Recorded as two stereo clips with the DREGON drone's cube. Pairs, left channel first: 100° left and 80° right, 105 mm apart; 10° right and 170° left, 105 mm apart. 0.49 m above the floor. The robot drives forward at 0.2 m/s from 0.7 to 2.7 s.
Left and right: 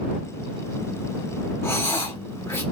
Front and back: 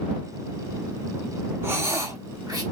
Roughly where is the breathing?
Behind left.